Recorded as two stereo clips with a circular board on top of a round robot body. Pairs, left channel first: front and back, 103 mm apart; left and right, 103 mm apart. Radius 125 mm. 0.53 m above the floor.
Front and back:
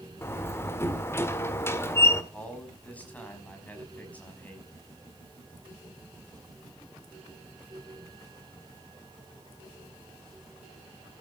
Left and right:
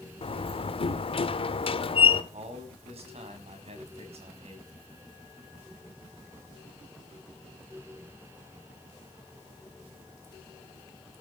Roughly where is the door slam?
Ahead left.